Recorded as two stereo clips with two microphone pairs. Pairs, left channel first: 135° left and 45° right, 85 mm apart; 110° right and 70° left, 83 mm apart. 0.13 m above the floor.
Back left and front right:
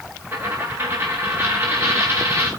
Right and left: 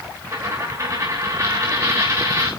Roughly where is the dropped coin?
Ahead.